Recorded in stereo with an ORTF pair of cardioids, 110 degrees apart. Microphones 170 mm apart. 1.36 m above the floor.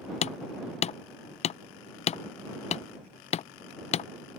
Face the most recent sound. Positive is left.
turn(degrees=40)